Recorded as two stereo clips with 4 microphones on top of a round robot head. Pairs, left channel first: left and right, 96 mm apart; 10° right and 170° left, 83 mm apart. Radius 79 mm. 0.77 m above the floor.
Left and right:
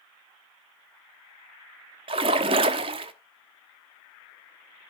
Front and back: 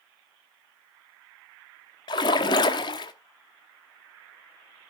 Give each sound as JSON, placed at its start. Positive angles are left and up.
{"t": 2.1, "sound": "a splash", "azimuth_deg": -55, "distance_m": 0.8}